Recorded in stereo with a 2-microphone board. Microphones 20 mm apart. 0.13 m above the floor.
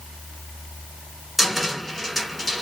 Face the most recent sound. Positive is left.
turn(degrees=-5)  # may be behind; listen again after turning